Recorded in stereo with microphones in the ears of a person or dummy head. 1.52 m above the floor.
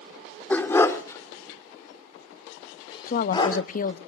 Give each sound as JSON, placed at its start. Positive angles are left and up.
{"t": 0.5, "sound": "a dog barking", "side_deg": 10, "distance_m": 1.8}
{"t": 3.1, "sound": "a woman speaking", "side_deg": 45, "distance_m": 0.7}